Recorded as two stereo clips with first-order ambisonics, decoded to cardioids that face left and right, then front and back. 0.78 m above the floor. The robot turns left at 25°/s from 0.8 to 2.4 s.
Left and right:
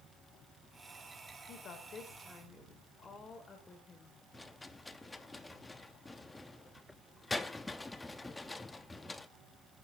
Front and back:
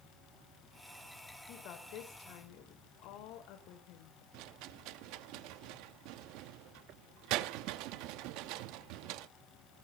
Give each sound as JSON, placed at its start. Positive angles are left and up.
{"t": 1.5, "sound": "a woman speaking", "azimuth_deg": 40, "distance_m": 3.0}
{"t": 4.3, "sound": "a rattle", "azimuth_deg": 175, "distance_m": 0.8}